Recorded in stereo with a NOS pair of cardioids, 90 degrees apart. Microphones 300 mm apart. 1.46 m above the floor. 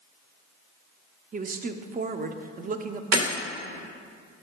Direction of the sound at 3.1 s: 60° right.